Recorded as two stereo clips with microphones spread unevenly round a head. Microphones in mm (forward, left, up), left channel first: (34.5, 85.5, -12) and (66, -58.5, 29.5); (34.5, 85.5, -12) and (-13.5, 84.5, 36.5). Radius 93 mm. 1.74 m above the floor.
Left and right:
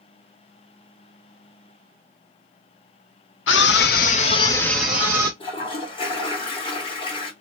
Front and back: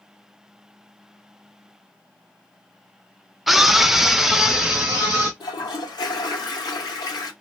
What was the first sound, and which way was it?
A scream, 130° left.